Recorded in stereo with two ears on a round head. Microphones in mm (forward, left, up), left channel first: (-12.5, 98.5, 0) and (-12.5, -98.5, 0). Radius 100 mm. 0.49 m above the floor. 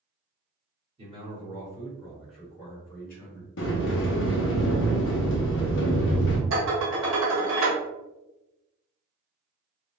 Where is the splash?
No splash in this recording.